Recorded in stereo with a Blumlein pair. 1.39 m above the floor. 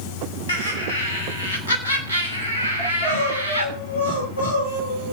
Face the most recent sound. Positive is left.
turn(degrees=65)